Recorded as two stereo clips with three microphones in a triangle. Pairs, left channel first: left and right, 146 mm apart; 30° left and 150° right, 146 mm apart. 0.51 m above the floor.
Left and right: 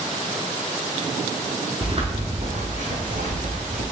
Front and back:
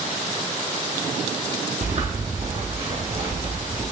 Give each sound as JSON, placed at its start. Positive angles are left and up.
{"t": 1.8, "sound": "footsteps", "azimuth_deg": -130, "distance_m": 0.9}